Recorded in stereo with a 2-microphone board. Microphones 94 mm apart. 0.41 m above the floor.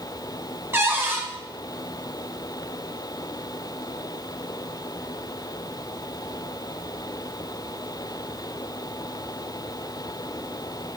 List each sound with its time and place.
0.7 s a cupboard door: 25° right (ahead or behind), 1.2 m